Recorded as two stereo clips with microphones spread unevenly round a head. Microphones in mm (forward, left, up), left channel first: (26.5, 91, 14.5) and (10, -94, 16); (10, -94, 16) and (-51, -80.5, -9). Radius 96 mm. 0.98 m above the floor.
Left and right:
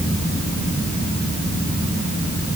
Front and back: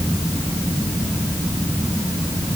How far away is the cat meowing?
I don't hear a cat meowing.